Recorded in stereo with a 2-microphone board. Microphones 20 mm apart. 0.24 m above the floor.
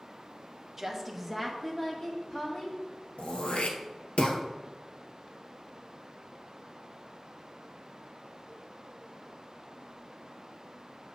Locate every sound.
0.8 s a woman speaking: 20° right (ahead or behind), 1.1 m; by 2.8 s 40° left (ahead or behind), 1.5 m
3.2 s throat clearing: 85° left, 1.0 m